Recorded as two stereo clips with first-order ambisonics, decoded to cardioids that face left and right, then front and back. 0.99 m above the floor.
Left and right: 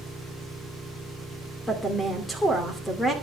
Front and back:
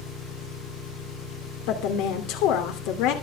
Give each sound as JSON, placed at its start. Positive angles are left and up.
{"t": 0.0, "sound": "an engine running", "azimuth_deg": 15, "distance_m": 9.5}
{"t": 1.7, "sound": "a woman speaking", "azimuth_deg": 10, "distance_m": 2.5}